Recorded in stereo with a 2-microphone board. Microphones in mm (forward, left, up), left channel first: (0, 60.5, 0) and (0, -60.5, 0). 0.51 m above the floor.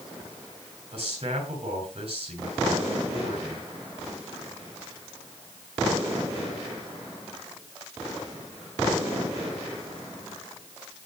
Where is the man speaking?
50° right (ahead or behind), 7.5 m.